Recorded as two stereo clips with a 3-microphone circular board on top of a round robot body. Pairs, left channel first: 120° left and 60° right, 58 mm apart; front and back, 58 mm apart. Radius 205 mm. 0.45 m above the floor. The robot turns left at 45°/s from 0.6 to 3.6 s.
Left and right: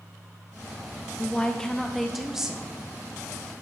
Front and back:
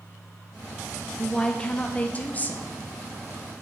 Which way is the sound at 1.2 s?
70° left.